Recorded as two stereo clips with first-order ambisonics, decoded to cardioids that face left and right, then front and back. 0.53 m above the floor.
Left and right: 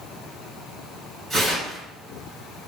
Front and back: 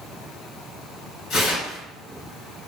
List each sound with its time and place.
1.3 s tearing paper: 20° right, 2.0 m